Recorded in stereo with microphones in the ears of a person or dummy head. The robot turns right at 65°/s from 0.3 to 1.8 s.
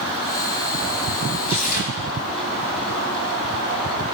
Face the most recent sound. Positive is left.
turn(degrees=50)  # may be behind; listen again after turning